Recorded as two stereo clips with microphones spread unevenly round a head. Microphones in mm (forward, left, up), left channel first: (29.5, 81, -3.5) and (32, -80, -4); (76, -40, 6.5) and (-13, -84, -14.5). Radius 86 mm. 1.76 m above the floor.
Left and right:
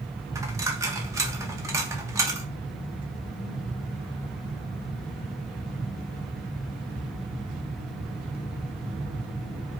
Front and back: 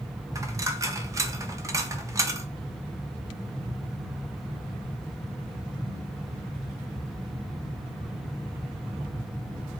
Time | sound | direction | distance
0.3 | a dropped coin | 120° right | 1.2 m